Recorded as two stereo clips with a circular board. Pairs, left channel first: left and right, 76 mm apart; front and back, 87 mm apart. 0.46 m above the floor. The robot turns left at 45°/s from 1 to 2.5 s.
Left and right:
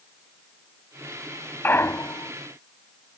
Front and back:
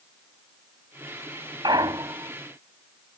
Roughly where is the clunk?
Behind left.